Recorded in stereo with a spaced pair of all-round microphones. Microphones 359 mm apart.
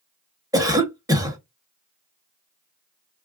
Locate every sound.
0.5 s a cough: 10° right (ahead or behind), 0.9 m